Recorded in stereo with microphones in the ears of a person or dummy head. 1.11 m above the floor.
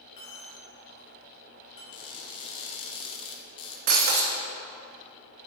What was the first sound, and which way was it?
A dropped coin, 20° left (ahead or behind).